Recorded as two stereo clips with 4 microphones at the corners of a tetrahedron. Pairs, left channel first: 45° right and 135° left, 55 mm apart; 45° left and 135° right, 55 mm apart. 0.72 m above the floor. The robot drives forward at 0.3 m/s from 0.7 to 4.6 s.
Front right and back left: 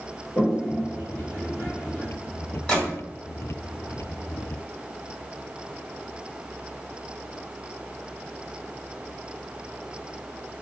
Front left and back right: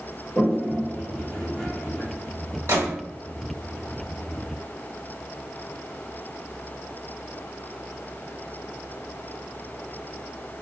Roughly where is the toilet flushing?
Ahead.